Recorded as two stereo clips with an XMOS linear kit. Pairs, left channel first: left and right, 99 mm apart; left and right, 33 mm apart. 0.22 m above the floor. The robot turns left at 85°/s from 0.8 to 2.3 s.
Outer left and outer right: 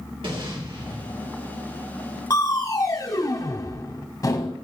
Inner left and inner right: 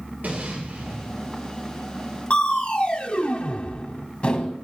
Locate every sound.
0.2 s an explosion: 65° right, 3 m; by 1.4 s 115° right, 3 m
2.3 s crushing: 40° left (ahead or behind), 0.9 m